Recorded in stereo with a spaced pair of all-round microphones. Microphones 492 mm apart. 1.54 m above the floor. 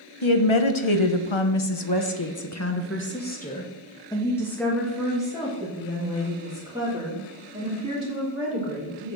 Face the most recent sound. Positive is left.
turn(degrees=-15)  # may be behind; listen again after turning